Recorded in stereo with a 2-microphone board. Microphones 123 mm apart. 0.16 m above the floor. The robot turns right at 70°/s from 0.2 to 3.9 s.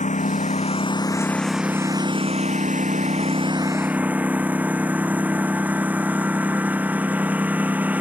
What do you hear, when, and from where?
0.0 s a lawn mower: 90° left; by 8.0 s 15° right